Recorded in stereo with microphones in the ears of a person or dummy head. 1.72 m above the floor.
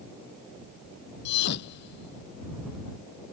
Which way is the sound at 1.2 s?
70° left (ahead or behind).